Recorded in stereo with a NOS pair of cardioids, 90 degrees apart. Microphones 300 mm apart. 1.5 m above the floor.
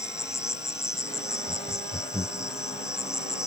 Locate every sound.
0.0 s an insect: 10° left
1.5 s laughter: 10° left